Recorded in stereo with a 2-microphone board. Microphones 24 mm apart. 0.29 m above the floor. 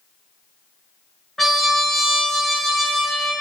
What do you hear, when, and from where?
1.4 s a trumpet: 10° left (ahead or behind), 0.7 m